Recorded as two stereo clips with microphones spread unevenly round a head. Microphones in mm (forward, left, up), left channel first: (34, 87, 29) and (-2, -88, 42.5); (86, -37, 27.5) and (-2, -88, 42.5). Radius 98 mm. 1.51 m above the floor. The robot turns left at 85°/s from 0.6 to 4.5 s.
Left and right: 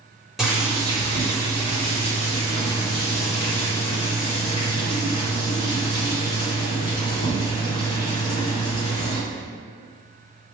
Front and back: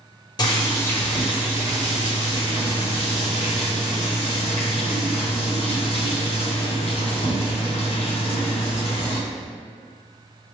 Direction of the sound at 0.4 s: 15° right.